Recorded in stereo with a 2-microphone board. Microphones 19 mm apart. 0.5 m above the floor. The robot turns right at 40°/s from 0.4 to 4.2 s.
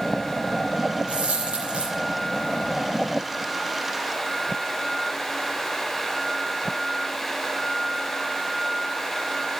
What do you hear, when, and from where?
1.1 s a dropped coin: 90° right, 7.5 m; by 1.9 s 55° right, 7.5 m